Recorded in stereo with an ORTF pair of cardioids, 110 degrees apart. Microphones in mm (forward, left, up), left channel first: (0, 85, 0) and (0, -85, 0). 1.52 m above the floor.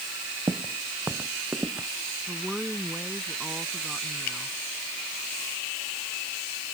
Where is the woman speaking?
5° right.